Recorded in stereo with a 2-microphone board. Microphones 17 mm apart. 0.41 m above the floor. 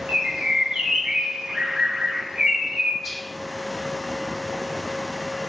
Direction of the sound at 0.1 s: 60° right (ahead or behind).